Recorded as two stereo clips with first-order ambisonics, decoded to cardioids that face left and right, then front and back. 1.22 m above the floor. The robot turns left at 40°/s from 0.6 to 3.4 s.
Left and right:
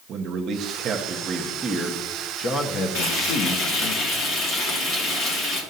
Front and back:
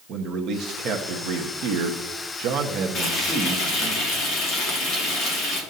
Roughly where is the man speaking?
Behind right.